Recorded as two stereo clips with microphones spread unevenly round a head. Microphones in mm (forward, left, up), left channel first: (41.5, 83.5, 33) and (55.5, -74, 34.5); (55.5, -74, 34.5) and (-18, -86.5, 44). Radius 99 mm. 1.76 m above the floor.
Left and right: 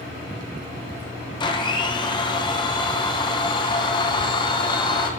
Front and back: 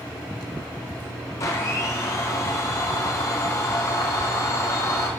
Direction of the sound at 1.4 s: 60° left.